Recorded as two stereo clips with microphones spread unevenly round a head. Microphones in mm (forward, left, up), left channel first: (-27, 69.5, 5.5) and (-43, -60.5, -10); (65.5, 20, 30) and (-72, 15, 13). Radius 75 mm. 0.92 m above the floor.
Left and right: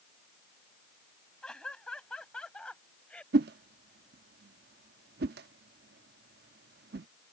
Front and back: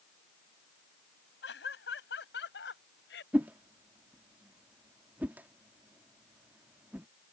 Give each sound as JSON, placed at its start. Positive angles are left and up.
{"t": 1.4, "sound": "laughter", "azimuth_deg": 0}
{"t": 3.3, "sound": "a whoosh", "azimuth_deg": -95}